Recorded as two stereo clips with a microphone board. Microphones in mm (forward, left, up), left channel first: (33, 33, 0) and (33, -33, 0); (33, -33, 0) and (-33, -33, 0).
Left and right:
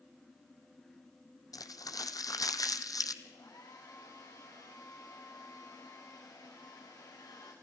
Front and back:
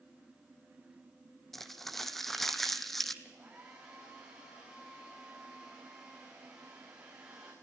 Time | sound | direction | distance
1.5 | crumpling | 85° left | 1.0 m
3.2 | a hair dryer | 105° left | 5.5 m